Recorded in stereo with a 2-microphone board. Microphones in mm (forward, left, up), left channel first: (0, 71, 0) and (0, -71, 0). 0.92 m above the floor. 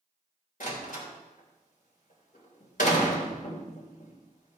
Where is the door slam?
75° left (ahead or behind), 3 m.